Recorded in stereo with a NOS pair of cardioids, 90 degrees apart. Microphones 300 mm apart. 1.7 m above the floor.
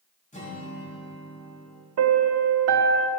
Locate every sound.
0.3 s a guitar: 25° left, 4.5 m
2.0 s a piano: 55° right, 0.9 m